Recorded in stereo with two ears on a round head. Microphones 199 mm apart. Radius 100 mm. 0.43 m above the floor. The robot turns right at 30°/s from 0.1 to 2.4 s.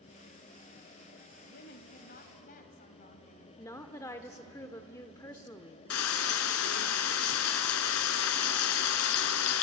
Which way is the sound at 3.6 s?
15° left (ahead or behind).